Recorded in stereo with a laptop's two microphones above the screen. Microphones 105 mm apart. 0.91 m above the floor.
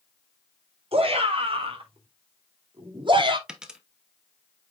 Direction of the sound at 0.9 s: 65° right (ahead or behind).